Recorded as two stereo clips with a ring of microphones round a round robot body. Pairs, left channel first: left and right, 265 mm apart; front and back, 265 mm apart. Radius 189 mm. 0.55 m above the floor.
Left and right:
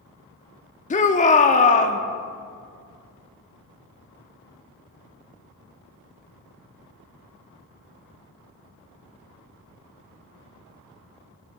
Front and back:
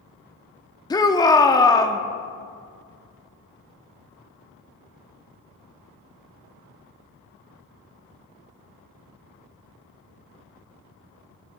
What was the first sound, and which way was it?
A shout, 60° left.